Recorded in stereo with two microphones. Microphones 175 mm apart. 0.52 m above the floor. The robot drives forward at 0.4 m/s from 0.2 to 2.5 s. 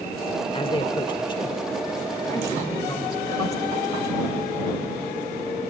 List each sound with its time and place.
0.5 s a man speaking: 30° left (ahead or behind), 1.1 m; by 4.3 s 20° left (ahead or behind), 1.7 m